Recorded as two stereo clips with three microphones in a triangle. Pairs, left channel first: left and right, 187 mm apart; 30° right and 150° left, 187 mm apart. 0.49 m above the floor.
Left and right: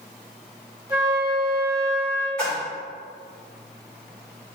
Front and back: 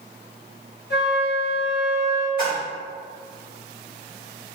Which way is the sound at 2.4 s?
10° left.